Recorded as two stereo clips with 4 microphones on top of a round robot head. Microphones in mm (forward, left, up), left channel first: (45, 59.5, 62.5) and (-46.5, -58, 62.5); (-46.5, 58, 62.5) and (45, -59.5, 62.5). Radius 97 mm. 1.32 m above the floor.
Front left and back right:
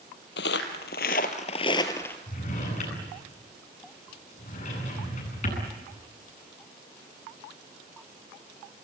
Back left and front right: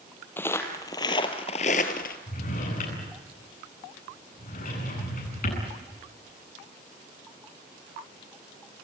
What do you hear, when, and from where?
0.4 s footsteps: 55° left, 2.5 m; by 2.2 s 130° left, 1.7 m
2.3 s a drawer: 95° left, 9.5 m